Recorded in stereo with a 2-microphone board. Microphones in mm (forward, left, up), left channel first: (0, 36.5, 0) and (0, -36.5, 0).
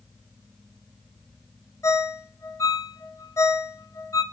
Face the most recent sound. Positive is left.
turn(degrees=45)  # may be behind; listen again after turning